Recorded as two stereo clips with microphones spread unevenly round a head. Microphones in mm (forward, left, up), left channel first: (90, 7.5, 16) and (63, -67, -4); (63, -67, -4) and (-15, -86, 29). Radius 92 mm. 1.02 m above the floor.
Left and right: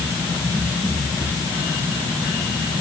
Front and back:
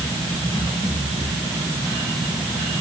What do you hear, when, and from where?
Only background noise.